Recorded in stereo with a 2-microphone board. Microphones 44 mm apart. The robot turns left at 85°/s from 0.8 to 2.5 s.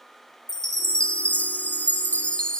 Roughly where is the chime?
Behind.